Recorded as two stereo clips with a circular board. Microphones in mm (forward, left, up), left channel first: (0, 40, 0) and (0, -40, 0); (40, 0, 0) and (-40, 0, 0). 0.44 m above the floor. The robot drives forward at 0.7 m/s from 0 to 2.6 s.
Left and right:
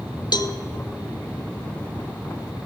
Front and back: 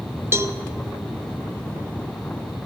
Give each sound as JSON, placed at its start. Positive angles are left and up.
{"t": 0.3, "sound": "a cowbell", "azimuth_deg": 120, "distance_m": 0.5}